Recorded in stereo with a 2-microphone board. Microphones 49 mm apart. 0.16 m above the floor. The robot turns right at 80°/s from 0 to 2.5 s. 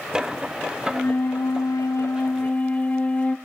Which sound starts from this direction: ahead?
A flute, at 0.9 s.